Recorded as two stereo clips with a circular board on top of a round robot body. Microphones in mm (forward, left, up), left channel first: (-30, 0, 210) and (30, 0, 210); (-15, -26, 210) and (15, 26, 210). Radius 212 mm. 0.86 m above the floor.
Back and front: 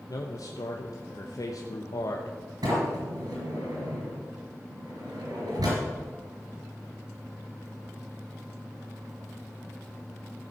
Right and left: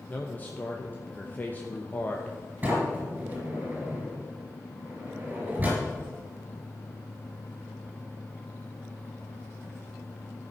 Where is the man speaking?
Straight behind, 1.1 m.